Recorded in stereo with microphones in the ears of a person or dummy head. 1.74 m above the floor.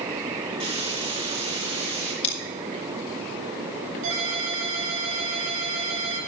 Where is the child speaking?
No child speaking in this recording.